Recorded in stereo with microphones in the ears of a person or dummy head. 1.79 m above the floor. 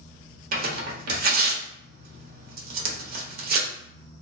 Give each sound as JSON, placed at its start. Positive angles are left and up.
{"t": 0.5, "sound": "tearing paper", "side_deg": -55, "distance_m": 1.1}